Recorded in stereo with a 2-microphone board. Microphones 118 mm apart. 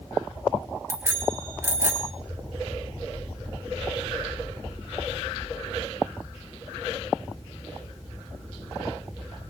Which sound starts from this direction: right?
A bicycle bell, at 0.9 s.